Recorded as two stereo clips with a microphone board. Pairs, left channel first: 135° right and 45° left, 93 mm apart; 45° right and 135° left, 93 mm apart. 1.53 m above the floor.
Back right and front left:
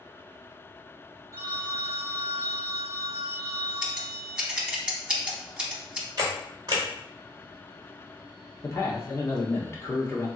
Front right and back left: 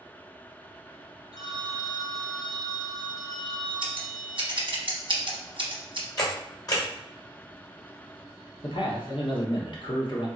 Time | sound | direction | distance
1.3 | a phone ringing | 10° right | 1.1 m
3.8 | scissors | 125° left | 0.7 m
6.2 | a camera shutter | straight ahead | 1.2 m
8.6 | a man speaking | 75° right | 0.9 m